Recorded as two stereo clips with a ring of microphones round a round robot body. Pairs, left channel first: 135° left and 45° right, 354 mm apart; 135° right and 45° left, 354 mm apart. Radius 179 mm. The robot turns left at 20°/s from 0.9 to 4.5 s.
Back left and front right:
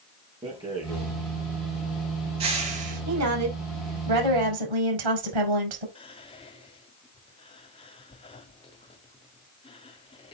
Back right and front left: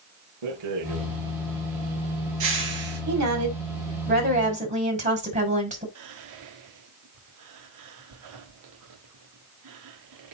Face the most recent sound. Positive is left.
turn(degrees=65)